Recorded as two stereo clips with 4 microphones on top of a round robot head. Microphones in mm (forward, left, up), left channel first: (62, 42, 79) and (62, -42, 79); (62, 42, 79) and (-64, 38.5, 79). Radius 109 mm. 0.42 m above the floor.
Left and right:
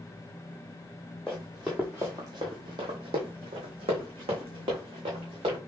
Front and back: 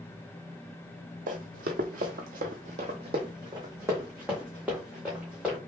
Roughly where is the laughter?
No laughter in this recording.